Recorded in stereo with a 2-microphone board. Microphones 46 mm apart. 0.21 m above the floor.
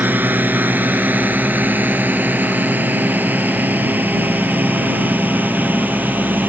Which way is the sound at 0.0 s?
40° right (ahead or behind).